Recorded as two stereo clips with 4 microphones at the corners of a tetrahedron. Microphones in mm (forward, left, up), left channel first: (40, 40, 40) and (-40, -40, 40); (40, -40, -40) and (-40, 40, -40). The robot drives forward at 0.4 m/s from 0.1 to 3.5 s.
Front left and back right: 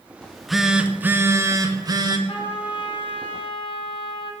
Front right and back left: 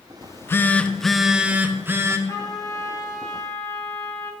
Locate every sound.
0.2 s a phone buzzing: 25° right, 0.6 m; by 2.2 s 170° right, 0.8 m
2.3 s a trumpet: 10° left, 1.4 m; by 4.3 s 15° left, 0.9 m